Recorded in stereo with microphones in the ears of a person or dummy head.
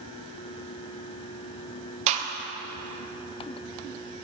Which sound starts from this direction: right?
A gunshot, at 2.1 s.